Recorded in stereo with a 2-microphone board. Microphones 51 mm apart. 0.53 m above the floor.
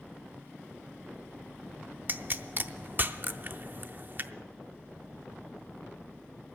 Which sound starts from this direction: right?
A pop, at 2.1 s.